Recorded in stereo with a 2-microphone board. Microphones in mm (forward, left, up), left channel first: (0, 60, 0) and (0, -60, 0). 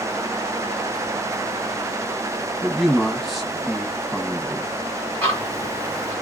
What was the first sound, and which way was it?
A man speaking, centre (ahead or behind).